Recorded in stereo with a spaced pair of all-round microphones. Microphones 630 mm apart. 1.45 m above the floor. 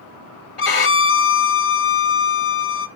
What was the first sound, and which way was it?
A violin, 55° left (ahead or behind).